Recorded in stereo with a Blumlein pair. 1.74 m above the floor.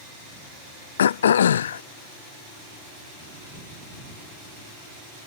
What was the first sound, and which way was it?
Throat clearing, 65° left.